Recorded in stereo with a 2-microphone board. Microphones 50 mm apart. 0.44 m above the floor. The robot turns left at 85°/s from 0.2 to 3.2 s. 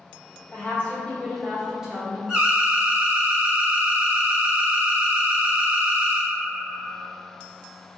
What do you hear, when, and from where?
0.5 s a woman speaking: 90° left, 0.9 m; by 2.2 s 55° right, 0.9 m
2.3 s an alarm: 15° right (ahead or behind), 1.2 m; by 6.3 s 25° right (ahead or behind), 1.2 m